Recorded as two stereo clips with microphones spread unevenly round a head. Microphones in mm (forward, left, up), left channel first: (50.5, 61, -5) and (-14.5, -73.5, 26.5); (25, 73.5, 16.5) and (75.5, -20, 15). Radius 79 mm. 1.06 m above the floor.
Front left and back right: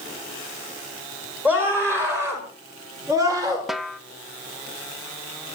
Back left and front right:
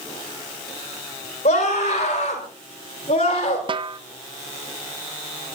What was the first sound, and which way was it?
A scream, 165° left.